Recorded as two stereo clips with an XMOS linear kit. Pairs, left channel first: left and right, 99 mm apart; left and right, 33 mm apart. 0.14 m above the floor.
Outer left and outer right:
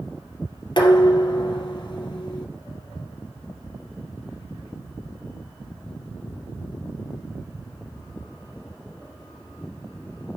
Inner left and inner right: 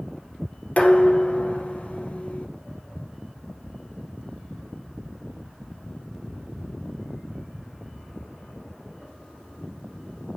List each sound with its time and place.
0.8 s dishes clattering: 45° left (ahead or behind), 2.5 m